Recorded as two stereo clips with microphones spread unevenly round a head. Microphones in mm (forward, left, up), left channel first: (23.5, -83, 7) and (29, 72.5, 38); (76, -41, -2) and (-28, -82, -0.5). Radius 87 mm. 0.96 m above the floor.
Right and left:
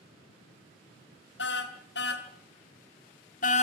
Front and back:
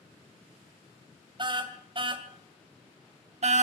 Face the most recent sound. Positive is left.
turn(degrees=-150)